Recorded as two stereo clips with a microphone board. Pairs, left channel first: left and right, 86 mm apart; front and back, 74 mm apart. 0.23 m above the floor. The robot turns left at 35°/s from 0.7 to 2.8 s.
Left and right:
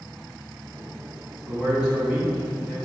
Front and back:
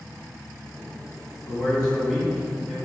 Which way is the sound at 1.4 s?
85° right.